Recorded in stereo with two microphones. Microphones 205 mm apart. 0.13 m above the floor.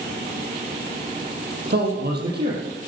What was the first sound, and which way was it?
A man speaking, 55° right (ahead or behind).